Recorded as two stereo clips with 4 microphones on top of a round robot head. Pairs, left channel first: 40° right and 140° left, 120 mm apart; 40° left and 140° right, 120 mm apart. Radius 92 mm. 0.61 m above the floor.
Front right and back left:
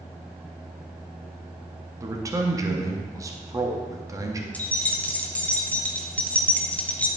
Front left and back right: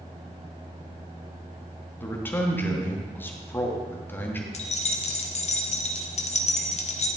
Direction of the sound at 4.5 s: 35° left.